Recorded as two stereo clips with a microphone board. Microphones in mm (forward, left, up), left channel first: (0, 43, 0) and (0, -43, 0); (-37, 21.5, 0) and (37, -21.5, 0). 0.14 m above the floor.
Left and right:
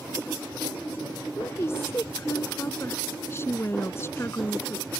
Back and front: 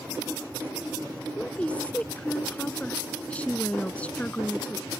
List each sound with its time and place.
1.4 s a woman speaking: 90° left